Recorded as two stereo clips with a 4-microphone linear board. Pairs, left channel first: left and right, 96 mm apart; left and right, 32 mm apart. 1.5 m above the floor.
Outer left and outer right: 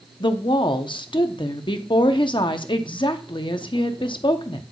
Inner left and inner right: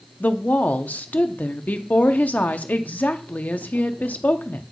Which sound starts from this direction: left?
A woman speaking, at 0.2 s.